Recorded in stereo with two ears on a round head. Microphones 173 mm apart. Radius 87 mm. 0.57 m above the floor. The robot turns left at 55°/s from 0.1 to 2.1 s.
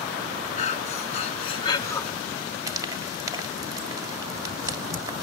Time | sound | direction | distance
0.6 | breathing | 100° left | 0.6 m
2.7 | frying | 20° right (ahead or behind) | 1.4 m